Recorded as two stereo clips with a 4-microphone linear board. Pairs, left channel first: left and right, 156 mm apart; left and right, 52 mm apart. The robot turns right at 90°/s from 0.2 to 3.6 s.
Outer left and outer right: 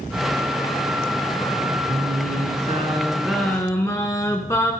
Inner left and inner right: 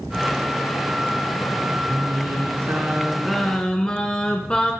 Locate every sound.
1.9 s singing: 135° right, 2 m; by 4.7 s 25° left, 2 m